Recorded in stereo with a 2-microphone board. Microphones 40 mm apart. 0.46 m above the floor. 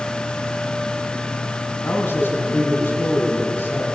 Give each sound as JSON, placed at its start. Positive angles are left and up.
{"t": 1.8, "sound": "a man speaking", "side_deg": 65, "distance_m": 5.5}